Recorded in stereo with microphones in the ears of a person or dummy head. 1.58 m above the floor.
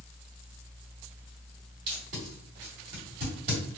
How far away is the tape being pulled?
About 1.4 m.